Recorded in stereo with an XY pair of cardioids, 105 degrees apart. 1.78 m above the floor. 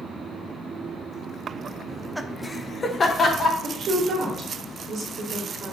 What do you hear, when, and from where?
1.9 s laughter: 20° right, 0.6 m; by 3.5 s 45° left, 1.0 m
3.6 s a woman speaking: 65° right, 1.3 m